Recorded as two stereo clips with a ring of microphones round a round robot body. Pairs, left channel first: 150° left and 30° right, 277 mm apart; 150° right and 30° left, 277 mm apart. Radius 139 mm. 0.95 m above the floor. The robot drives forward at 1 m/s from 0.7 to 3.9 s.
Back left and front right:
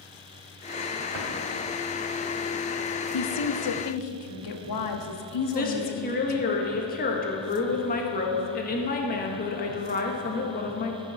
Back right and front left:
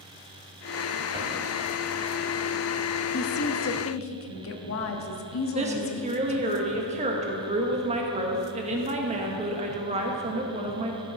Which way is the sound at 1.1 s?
40° right.